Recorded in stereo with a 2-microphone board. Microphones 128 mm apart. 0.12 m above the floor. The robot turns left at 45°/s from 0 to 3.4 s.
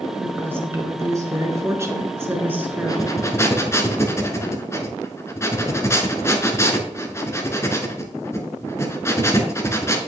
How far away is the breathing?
About 1.0 m.